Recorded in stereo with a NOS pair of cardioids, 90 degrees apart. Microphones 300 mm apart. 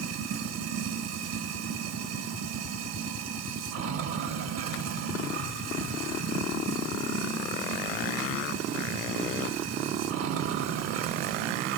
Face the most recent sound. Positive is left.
turn(degrees=-70)